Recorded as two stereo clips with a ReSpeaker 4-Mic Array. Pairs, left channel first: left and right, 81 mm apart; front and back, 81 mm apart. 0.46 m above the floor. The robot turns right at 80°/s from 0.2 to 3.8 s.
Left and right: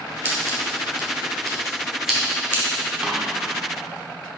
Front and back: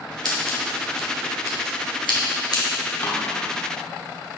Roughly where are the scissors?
Behind right.